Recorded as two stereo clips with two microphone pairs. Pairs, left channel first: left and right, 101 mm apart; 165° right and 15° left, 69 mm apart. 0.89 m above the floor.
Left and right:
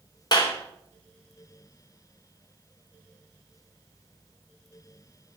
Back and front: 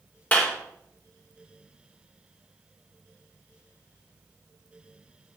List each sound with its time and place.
0.3 s a clap: 130° left, 3 m